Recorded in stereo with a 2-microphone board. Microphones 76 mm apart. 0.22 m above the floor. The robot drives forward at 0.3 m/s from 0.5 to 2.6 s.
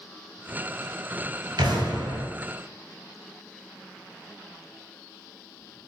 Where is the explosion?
80° right, 1.2 m; by 2.3 s 75° right (ahead or behind), 1.2 m.